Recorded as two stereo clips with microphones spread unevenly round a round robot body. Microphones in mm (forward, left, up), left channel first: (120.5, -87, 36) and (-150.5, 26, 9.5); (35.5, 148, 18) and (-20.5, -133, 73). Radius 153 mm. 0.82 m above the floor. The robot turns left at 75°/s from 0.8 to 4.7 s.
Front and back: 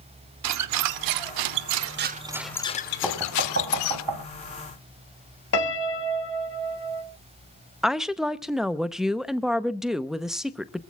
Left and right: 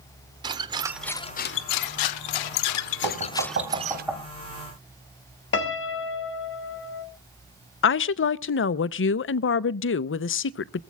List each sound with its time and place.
0.4 s a squeak: 170° right, 0.7 m; by 4.0 s 55° right, 0.7 m
3.0 s knocking: 110° right, 3.5 m; by 4.2 s 160° left, 3.5 m
5.5 s a piano: 30° left, 2 m
7.8 s a woman speaking: 75° left, 0.7 m